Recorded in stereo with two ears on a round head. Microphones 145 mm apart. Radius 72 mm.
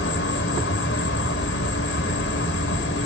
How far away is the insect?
About 1.0 m.